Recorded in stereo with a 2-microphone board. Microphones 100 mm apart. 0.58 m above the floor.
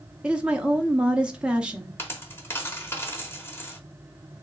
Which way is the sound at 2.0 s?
25° left (ahead or behind).